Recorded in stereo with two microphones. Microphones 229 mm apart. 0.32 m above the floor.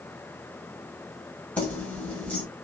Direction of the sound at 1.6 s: 5° left (ahead or behind).